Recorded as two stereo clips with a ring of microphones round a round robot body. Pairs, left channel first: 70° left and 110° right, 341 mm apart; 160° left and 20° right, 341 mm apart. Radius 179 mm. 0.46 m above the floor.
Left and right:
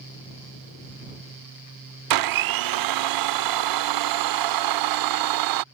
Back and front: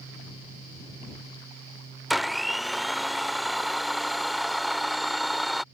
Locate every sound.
2.1 s a blender: 110° right